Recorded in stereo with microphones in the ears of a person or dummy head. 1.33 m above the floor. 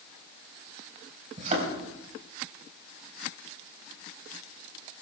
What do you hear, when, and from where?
1.4 s a thud: 40° right (ahead or behind), 4.5 m